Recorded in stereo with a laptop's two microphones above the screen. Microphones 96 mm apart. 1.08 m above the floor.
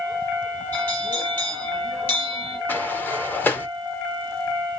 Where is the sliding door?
20° left (ahead or behind), 0.9 m.